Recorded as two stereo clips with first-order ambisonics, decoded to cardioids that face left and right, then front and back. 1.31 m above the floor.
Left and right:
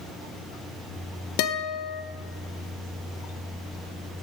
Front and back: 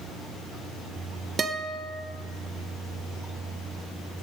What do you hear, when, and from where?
1.4 s a guitar: 110° left, 0.9 m